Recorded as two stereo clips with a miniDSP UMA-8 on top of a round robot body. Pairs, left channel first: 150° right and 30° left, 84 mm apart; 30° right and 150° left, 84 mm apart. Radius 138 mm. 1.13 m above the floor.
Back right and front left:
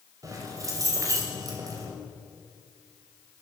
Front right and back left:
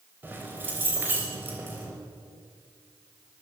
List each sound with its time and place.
0.2 s keys jangling: 80° left, 5 m